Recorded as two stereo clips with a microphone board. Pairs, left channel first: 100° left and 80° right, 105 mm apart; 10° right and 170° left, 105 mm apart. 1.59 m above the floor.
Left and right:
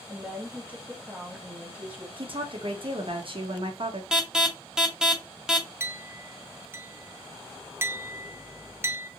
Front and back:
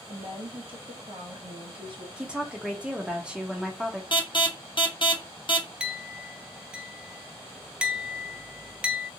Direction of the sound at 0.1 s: 155° right.